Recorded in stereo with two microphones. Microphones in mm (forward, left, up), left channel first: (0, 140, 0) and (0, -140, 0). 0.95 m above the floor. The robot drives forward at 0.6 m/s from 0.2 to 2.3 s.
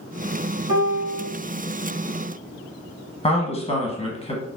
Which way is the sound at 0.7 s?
55° left (ahead or behind).